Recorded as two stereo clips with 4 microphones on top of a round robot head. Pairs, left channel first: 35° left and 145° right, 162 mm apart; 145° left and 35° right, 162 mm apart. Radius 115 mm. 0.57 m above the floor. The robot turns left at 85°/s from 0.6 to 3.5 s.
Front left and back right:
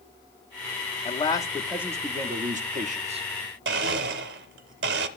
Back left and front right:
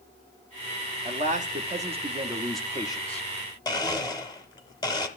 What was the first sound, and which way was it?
A man speaking, straight ahead.